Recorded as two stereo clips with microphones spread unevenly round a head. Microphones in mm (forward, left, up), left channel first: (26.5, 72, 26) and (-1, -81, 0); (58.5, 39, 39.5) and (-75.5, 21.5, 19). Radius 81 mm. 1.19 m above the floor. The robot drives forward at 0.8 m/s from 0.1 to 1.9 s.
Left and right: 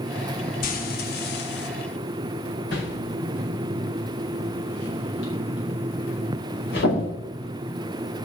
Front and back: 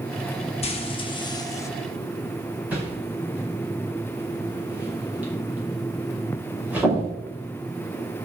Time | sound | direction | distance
0.6 | frying | 50° left | 1.9 m
2.7 | a whoosh | 110° left | 5 m